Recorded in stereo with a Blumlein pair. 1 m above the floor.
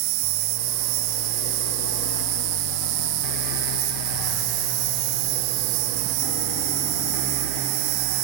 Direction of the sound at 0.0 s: 45° right.